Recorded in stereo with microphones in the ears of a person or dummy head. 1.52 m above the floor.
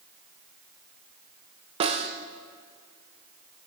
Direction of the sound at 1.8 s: 25° right (ahead or behind).